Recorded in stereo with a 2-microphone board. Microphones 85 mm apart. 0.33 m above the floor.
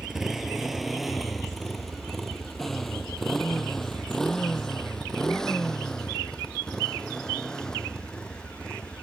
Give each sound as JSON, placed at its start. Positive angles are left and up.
{"t": 0.0, "sound": "a motorcycle", "side_deg": -5}